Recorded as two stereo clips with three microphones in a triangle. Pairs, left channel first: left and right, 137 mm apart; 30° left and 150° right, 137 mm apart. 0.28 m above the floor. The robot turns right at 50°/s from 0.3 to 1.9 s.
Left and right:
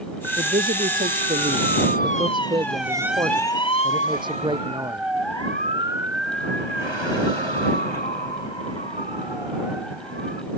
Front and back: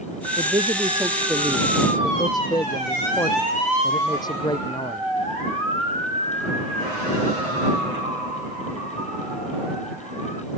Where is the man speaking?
110° right; by 5.1 s 35° right.